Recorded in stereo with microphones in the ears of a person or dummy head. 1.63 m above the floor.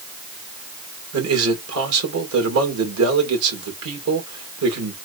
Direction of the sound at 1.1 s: 85° right.